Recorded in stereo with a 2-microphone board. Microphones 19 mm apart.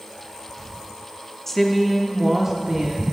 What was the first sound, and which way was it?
A woman speaking, 15° left (ahead or behind).